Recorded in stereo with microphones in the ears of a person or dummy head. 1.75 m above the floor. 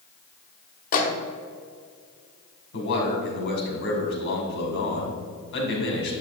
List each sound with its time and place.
0.9 s a microwave: 45° left (ahead or behind), 1.0 m
2.7 s a man speaking: 65° left (ahead or behind), 2 m